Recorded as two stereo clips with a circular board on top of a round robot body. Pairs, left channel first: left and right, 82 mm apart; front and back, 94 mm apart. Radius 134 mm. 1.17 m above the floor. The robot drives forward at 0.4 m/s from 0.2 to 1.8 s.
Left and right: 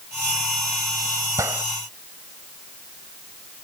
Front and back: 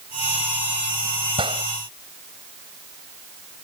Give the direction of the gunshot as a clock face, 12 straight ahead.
5 o'clock.